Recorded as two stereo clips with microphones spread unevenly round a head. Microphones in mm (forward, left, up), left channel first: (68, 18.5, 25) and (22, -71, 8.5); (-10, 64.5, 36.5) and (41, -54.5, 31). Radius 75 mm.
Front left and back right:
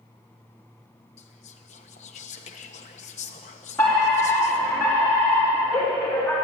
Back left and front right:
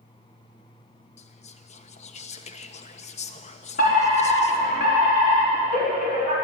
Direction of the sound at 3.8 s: 145° left.